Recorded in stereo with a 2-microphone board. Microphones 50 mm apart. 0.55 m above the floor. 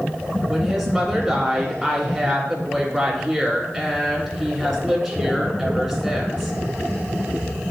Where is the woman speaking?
Centre (ahead or behind), 1.9 m.